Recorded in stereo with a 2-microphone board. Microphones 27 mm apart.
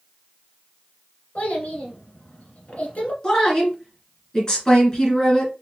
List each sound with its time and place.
1.4 s a child speaking: 60° left (ahead or behind), 1.7 m
3.2 s a woman speaking: 25° left (ahead or behind), 2.5 m